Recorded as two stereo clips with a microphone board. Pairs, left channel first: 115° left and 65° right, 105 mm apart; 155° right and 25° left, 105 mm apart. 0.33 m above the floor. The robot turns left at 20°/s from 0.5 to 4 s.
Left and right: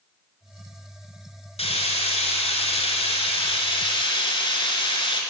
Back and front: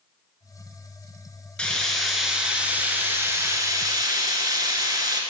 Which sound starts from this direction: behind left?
Frying, at 1.6 s.